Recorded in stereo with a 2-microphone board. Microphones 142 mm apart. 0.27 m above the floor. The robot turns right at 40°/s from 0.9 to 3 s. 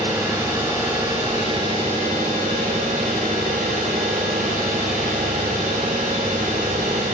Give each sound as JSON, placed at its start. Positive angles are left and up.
{"t": 0.0, "sound": "an engine running", "azimuth_deg": -160, "distance_m": 5.0}